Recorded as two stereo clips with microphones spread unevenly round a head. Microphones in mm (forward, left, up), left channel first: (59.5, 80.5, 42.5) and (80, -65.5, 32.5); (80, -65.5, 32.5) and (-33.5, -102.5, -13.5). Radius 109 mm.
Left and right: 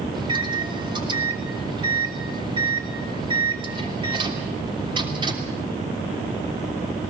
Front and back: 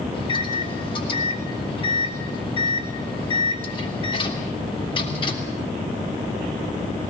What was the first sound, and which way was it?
A microwave, 25° right.